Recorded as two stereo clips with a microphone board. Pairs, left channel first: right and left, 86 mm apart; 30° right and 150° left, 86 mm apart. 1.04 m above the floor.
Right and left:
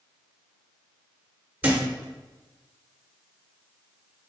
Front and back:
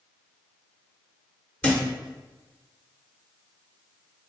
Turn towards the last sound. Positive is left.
turn(degrees=30)